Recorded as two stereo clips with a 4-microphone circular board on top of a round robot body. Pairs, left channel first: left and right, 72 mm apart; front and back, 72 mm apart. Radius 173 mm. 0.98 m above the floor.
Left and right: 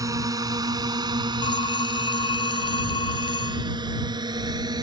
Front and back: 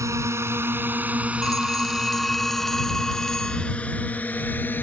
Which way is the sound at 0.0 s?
130° right.